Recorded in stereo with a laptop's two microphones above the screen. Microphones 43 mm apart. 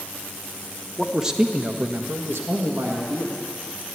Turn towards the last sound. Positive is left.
turn(degrees=-65)  # may be behind; listen again after turning